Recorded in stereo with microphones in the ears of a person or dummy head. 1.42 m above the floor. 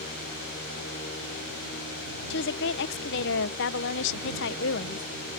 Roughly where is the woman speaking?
Left.